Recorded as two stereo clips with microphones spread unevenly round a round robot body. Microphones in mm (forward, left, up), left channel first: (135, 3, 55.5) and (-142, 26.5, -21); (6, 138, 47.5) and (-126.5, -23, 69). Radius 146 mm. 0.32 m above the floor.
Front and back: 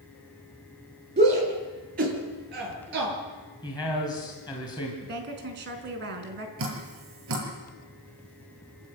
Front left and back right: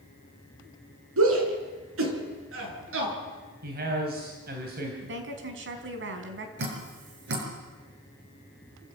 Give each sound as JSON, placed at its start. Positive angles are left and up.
{"t": 1.2, "sound": "a shout", "azimuth_deg": -125, "distance_m": 5.5}
{"t": 3.6, "sound": "a man speaking", "azimuth_deg": -85, "distance_m": 3.0}
{"t": 5.0, "sound": "a woman speaking", "azimuth_deg": -145, "distance_m": 4.0}
{"t": 6.6, "sound": "dripping", "azimuth_deg": -150, "distance_m": 6.0}